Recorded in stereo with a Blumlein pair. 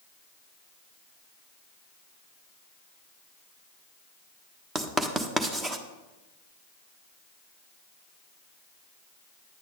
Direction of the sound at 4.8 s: 15° right.